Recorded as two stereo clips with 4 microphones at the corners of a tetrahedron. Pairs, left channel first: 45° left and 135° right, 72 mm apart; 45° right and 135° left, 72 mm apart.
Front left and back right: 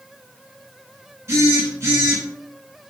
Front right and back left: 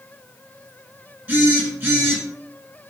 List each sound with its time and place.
1.3 s a phone buzzing: 165° right, 1.2 m